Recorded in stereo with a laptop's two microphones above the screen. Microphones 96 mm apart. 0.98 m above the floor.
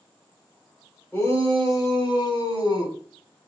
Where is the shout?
30° left (ahead or behind), 3.5 m; by 3.0 s 45° left (ahead or behind), 5.5 m.